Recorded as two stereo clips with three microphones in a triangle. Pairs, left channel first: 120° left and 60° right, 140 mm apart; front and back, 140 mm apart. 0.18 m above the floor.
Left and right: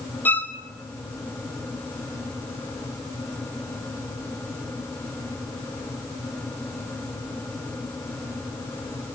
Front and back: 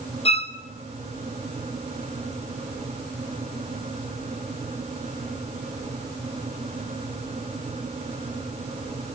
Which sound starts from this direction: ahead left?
A violin, at 0.2 s.